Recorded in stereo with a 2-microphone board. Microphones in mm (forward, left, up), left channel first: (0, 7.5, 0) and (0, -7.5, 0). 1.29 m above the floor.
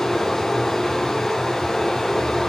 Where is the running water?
25° left (ahead or behind), 8 m.